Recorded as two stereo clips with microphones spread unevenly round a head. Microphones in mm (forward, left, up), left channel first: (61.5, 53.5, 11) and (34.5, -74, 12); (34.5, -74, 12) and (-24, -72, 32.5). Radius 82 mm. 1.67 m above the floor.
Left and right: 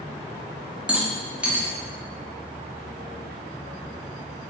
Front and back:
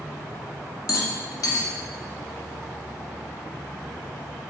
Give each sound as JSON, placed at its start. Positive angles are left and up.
{"t": 0.9, "sound": "a rattle", "azimuth_deg": -20, "distance_m": 0.7}